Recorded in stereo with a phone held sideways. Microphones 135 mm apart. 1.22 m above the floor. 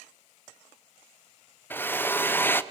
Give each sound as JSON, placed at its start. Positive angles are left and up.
{"t": 1.7, "sound": "a drill", "side_deg": 15, "distance_m": 0.5}